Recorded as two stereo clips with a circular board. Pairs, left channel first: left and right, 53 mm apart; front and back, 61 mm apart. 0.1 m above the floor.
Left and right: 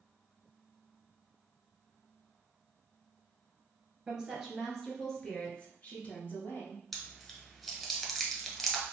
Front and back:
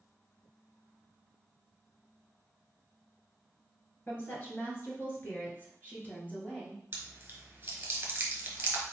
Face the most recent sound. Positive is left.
turn(degrees=180)